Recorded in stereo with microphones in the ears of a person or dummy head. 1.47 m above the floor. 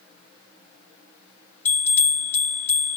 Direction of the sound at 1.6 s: 10° left (ahead or behind).